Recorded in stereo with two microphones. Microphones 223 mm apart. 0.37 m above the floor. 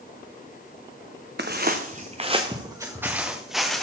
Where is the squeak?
No squeak in this recording.